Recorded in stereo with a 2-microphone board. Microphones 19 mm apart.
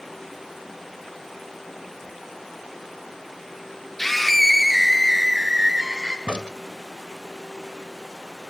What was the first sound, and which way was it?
A scream, 15° left (ahead or behind).